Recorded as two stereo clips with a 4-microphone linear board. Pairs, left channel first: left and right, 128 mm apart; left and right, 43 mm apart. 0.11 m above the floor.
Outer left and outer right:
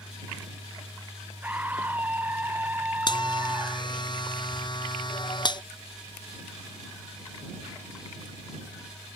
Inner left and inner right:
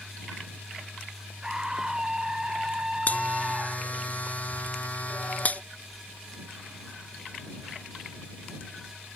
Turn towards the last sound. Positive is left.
turn(degrees=35)  # may be behind; listen again after turning